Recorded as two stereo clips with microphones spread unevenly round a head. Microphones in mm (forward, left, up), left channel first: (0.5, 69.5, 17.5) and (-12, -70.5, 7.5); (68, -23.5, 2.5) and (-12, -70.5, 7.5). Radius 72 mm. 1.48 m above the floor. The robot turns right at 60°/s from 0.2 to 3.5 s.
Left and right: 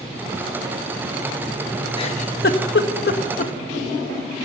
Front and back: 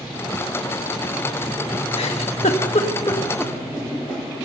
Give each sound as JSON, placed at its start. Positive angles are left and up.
{"t": 2.0, "sound": "a giggle", "azimuth_deg": 30, "distance_m": 1.6}